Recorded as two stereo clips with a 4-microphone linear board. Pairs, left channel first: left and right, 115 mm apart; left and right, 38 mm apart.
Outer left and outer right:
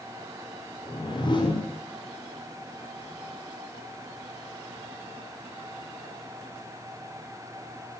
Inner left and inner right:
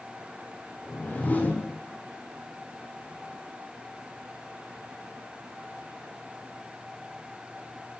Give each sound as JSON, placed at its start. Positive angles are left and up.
{"t": 0.8, "sound": "a whoosh", "side_deg": 45, "distance_m": 7.0}